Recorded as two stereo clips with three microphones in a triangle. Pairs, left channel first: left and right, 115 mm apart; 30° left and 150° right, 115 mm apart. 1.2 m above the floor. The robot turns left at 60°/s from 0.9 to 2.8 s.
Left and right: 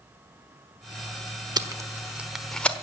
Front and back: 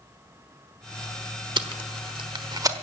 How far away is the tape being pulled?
About 1.1 m.